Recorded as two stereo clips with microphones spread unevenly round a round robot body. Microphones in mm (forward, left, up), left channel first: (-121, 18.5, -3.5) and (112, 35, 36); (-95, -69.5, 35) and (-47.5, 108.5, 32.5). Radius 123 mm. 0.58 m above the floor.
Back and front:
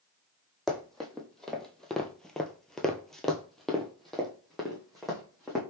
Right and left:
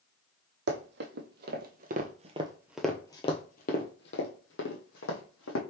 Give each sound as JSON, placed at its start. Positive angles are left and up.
{"t": 0.7, "sound": "running footsteps", "azimuth_deg": 90, "distance_m": 1.3}